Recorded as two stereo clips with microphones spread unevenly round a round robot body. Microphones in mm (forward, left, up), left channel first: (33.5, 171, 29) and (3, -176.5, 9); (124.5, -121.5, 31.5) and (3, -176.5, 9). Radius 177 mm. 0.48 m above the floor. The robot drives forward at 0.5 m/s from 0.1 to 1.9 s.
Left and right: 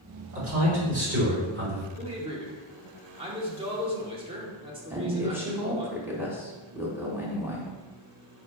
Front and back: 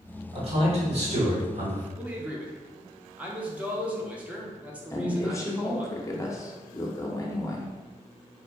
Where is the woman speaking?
30° right, 0.9 m.